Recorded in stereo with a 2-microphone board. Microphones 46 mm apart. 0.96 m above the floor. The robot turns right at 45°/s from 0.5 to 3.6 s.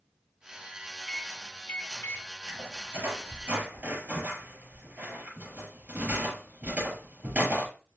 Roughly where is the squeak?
Right.